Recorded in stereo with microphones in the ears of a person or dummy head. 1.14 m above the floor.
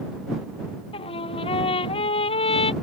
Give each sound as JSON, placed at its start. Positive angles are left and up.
{"t": 0.9, "sound": "a trumpet", "side_deg": 30}